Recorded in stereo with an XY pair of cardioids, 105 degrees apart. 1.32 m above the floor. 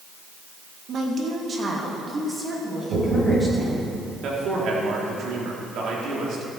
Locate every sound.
0.9 s a woman speaking: 60° right, 1.7 m; by 3.9 s 15° right, 5 m
2.9 s knocking: 55° right, 4 m
4.2 s a man speaking: 70° right, 2.5 m